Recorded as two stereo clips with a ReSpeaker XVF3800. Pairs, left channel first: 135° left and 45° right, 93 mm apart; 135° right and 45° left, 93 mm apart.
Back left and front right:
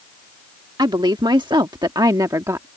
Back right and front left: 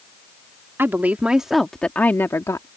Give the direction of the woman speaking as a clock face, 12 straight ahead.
1 o'clock.